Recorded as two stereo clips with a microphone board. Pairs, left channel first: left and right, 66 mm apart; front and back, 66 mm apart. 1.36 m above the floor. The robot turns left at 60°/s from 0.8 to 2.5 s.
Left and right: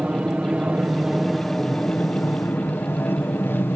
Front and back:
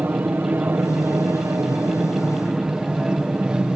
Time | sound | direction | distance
0.0 | an aircraft | 145° right | ?